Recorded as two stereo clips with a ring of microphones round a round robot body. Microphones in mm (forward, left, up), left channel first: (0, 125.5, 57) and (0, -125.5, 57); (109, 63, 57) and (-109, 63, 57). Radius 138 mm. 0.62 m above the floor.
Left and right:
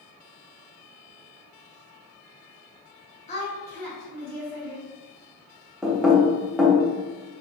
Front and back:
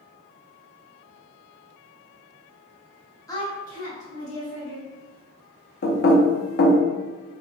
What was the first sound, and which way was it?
A woman speaking, 60° left.